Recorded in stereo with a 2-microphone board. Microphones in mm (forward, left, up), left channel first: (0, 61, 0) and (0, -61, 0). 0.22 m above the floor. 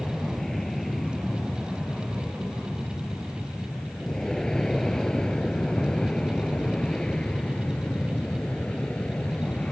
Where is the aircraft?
Centre (ahead or behind); by 9.7 s 10° left (ahead or behind).